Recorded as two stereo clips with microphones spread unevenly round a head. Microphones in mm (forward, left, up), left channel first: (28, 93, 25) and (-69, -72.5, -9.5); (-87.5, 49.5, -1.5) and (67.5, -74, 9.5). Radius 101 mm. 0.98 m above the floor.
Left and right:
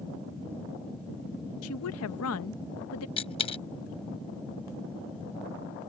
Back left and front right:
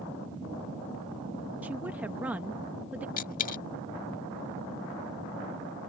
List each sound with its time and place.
1.6 s a woman speaking: 45° left
3.2 s a dropped coin: 100° left